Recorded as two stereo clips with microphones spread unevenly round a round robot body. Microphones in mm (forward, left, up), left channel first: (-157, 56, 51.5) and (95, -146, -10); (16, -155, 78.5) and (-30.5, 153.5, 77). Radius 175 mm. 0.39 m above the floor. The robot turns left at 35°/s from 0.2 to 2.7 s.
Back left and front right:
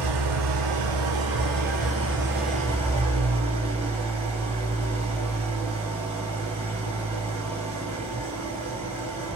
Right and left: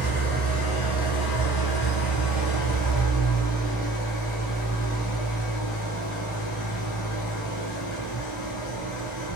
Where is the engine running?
25° right, 5.5 m; by 9.4 s 110° right, 5.5 m.